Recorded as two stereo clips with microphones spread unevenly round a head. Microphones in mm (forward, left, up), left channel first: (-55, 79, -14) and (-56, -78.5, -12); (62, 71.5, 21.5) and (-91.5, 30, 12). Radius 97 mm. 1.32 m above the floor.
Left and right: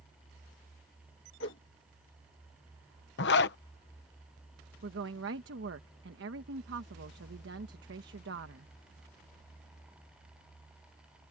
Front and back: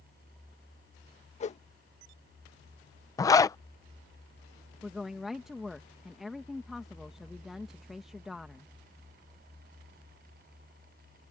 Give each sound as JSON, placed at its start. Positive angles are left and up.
{"t": 1.4, "sound": "a whoosh", "azimuth_deg": 60}
{"t": 3.2, "sound": "a zipper", "azimuth_deg": 85}
{"t": 4.8, "sound": "a woman speaking", "azimuth_deg": -75}